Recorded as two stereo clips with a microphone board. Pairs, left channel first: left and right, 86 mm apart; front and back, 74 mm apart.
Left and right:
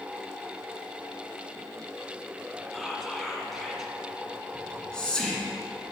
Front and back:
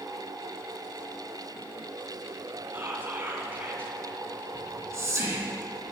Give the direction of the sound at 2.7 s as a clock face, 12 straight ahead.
6 o'clock.